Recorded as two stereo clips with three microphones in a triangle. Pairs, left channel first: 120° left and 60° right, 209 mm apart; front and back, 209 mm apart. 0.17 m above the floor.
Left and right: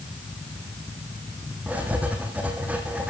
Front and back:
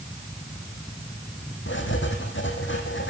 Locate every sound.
1.7 s writing: 25° left, 4 m